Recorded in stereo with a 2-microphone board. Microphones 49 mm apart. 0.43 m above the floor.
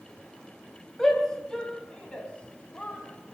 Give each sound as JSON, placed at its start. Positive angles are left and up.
{"t": 1.0, "sound": "a shout", "side_deg": 10, "distance_m": 2.5}